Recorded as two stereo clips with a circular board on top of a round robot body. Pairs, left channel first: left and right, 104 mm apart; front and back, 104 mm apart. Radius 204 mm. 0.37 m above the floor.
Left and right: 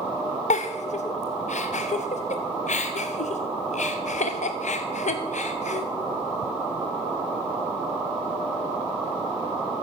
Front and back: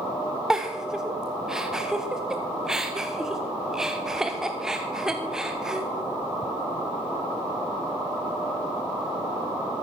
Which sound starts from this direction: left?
A giggle, at 0.5 s.